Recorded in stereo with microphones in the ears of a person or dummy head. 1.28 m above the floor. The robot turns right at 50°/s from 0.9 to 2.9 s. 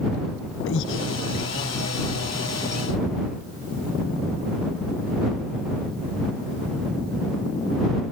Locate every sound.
0.7 s breathing: 75° left (ahead or behind); by 1.1 s 85° left